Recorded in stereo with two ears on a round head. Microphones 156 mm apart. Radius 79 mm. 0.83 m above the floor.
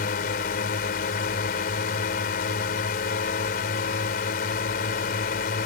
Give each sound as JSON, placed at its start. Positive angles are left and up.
{"t": 0.0, "sound": "a drone", "side_deg": 60}